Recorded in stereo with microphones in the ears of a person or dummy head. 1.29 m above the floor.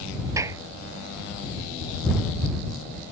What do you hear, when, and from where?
0.4 s a clap: 15° right (ahead or behind)